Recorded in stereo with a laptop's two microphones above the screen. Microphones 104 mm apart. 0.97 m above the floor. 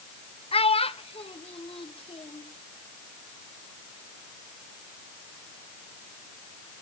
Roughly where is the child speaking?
Left.